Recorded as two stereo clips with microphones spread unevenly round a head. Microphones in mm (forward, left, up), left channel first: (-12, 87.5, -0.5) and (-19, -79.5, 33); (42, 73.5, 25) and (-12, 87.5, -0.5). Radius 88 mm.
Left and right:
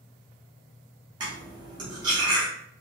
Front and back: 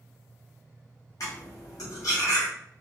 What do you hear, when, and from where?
1.2 s cutlery clinking: 30° right, 0.8 m